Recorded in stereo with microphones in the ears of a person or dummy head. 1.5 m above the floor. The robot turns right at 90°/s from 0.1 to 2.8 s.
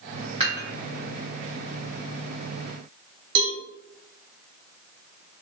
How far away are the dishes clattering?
About 1.1 m.